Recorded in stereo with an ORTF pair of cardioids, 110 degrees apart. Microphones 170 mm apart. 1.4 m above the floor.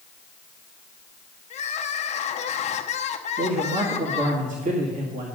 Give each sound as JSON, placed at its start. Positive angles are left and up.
{"t": 1.5, "sound": "crying", "azimuth_deg": 45, "distance_m": 0.8}
{"t": 3.4, "sound": "a man speaking", "azimuth_deg": -50, "distance_m": 2.0}